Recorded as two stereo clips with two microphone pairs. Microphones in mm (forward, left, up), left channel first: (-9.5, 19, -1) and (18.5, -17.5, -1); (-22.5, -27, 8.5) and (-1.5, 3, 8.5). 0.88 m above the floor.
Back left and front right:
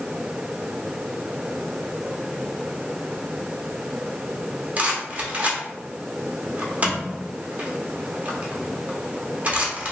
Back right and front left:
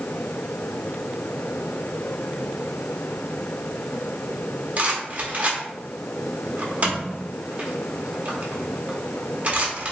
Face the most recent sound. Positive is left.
turn(degrees=5)